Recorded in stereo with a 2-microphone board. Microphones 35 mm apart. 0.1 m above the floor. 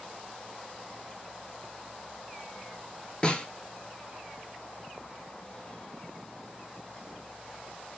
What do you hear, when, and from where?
3.2 s a snare drum: 25° left (ahead or behind), 0.9 m